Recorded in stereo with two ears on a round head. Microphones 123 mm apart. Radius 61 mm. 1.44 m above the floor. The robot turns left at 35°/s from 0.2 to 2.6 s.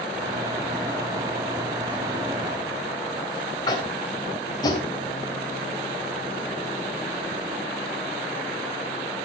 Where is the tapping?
30° left (ahead or behind), 3 m.